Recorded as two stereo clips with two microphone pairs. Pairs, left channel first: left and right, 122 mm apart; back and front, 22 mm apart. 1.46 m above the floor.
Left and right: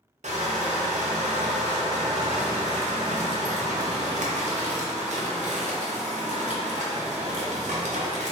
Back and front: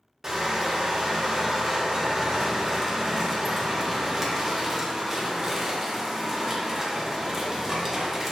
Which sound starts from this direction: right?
Crushing, at 0.2 s.